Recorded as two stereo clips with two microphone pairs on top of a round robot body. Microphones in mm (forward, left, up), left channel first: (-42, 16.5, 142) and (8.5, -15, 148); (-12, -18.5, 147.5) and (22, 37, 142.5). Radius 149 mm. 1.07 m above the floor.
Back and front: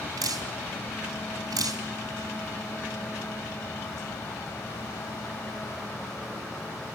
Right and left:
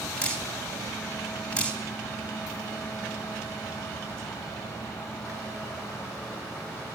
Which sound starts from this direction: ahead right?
Dripping, at 0.2 s.